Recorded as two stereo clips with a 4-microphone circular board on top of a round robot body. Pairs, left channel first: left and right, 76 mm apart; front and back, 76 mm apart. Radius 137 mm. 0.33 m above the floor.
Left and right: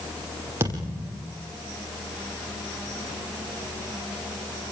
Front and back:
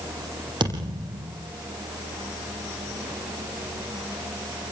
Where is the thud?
150° right, 7 m.